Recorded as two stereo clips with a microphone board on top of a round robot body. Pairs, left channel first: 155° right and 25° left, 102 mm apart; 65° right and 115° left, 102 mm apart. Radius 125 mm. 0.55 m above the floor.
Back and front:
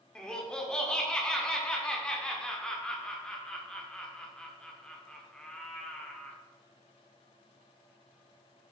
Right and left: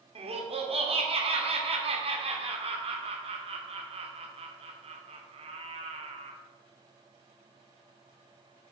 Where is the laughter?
120° left, 1.6 m.